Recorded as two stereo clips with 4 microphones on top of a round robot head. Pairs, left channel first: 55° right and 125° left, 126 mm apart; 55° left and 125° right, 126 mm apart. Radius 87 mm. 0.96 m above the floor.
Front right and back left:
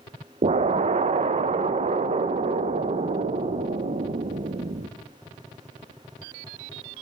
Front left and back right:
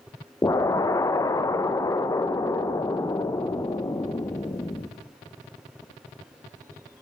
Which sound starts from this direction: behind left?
An explosion, at 0.4 s.